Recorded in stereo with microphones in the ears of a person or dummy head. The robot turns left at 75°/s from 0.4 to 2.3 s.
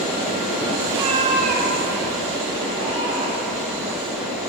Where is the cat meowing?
25° right, 1.4 m; by 3.6 s 130° right, 1.4 m.